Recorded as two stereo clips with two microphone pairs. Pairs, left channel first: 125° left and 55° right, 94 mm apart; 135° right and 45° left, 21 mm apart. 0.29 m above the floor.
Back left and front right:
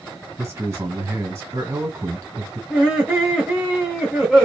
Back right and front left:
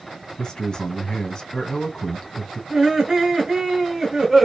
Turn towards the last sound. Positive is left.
turn(degrees=25)